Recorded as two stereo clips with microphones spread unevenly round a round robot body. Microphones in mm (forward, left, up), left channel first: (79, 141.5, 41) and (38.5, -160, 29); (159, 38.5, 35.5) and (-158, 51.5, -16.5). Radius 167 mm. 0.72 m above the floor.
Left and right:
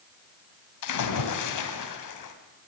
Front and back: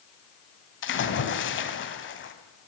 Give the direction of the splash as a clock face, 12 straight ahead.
10 o'clock.